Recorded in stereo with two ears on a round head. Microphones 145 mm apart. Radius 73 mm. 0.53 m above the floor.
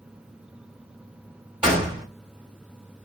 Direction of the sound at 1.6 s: 5° right (ahead or behind).